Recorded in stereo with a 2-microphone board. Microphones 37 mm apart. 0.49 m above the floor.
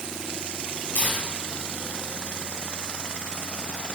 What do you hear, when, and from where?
0.9 s tearing paper: 40° left (ahead or behind), 3 m